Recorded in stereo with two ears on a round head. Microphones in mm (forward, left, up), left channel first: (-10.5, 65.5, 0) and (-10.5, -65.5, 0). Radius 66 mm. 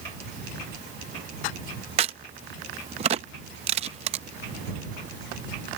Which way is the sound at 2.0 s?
40° right (ahead or behind).